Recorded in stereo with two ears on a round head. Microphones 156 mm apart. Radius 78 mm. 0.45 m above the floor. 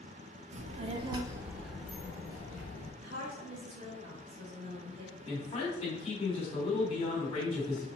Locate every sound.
0.5 s a child speaking: 40° right (ahead or behind), 0.6 m; by 2.9 s 20° left (ahead or behind), 1.0 m
3.0 s a woman speaking: 35° right (ahead or behind), 1.4 m
5.2 s a man speaking: 35° left (ahead or behind), 1.4 m